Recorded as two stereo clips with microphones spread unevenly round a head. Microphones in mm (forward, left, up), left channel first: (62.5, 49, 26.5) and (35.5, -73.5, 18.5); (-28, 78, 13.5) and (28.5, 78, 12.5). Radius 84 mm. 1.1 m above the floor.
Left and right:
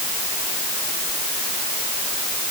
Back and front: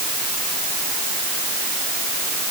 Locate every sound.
Only background noise.